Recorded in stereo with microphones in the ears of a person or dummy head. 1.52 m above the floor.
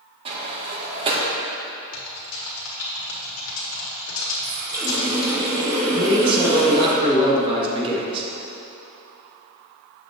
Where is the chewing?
I don't hear chewing.